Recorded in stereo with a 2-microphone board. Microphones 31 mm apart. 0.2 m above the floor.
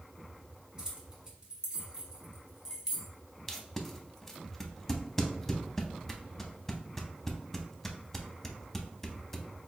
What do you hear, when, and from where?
0.8 s keys jangling: 20° right (ahead or behind), 1.0 m; by 3.1 s 15° right (ahead or behind), 1.1 m
3.5 s tape being pulled: 10° left (ahead or behind), 0.5 m